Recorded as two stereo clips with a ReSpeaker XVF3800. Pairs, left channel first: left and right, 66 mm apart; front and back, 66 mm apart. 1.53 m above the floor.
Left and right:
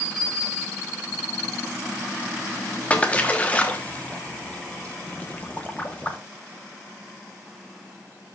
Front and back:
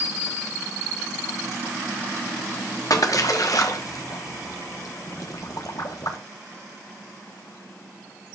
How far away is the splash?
About 1.0 m.